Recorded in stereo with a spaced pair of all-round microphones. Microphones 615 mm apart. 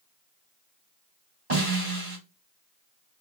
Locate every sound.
1.5 s a snare drum: 75° right (ahead or behind), 4 m